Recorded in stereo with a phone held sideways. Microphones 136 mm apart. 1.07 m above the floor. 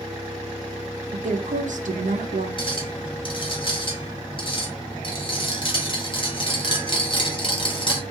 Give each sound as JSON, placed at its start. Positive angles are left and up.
{"t": 1.1, "sound": "a woman speaking", "side_deg": -65, "distance_m": 0.6}
{"t": 2.6, "sound": "a clink", "side_deg": 40, "distance_m": 0.8}